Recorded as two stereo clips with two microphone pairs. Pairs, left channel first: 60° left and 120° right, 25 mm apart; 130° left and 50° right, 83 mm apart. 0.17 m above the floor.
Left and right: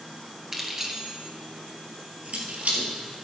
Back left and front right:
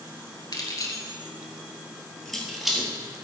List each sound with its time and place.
0.5 s keys jangling: 165° left, 1.7 m; by 2.9 s 130° right, 2.5 m